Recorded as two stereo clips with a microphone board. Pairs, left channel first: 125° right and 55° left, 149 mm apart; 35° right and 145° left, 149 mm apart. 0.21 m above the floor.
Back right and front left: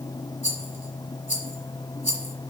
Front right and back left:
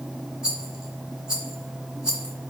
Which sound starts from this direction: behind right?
A rattle, at 0.4 s.